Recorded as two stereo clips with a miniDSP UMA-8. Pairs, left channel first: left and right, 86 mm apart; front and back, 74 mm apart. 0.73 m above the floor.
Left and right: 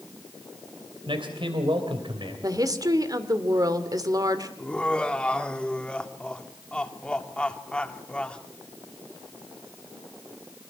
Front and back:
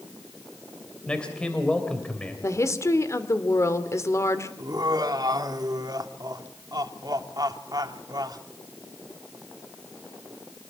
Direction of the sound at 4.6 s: 165° left.